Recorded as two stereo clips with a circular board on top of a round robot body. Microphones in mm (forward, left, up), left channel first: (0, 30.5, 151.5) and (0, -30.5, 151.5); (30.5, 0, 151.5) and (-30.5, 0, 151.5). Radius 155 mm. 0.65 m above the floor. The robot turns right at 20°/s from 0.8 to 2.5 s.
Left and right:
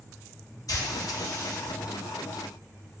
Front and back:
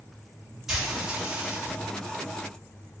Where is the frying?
95° left, 1.4 m; by 1.7 s 115° left, 1.4 m.